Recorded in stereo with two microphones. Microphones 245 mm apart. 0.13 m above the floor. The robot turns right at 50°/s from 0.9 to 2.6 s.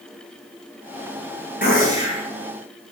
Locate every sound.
1.6 s a gunshot: 120° left, 1.0 m; by 2.3 s 155° left, 1.0 m